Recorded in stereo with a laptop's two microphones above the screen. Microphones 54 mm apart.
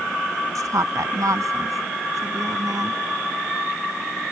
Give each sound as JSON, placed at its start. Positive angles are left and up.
{"t": 0.6, "sound": "a woman speaking", "side_deg": -85}